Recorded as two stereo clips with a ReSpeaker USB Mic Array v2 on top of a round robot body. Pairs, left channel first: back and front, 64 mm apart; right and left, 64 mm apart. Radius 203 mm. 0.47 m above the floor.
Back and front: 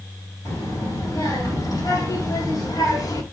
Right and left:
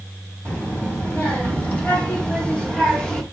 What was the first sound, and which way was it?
A child speaking, 155° right.